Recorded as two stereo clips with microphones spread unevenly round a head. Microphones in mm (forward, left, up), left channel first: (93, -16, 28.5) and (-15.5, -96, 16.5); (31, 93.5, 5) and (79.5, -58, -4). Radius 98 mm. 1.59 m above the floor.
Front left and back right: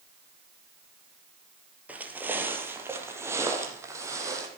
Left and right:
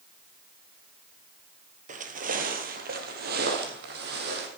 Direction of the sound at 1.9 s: 65° right.